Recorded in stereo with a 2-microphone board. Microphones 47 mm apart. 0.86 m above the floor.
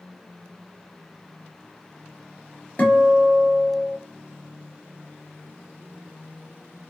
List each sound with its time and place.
2.8 s a guitar: 35° left (ahead or behind), 1.0 m